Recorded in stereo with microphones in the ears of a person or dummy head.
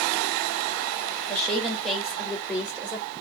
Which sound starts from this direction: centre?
A woman speaking, at 1.3 s.